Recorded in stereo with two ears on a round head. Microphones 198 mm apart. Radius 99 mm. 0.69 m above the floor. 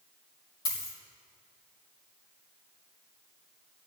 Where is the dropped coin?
20° left (ahead or behind), 5 m.